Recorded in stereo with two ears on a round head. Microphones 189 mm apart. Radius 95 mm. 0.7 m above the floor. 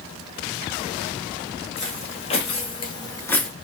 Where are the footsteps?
30° left (ahead or behind), 1.6 m; by 3.5 s 5° left (ahead or behind), 0.6 m.